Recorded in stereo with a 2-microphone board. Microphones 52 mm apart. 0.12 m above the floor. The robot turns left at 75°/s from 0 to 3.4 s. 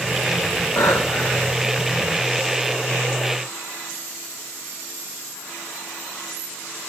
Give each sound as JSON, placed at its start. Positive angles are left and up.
{"t": 0.8, "sound": "breathing", "azimuth_deg": 85, "distance_m": 1.1}